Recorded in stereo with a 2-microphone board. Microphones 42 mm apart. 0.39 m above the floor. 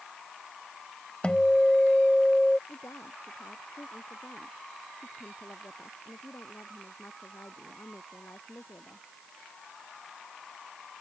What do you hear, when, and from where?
1.2 s a guitar: 25° left (ahead or behind)
2.7 s a woman speaking: 85° left